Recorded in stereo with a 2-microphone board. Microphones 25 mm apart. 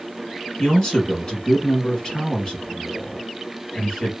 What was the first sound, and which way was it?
A man speaking, 35° left (ahead or behind).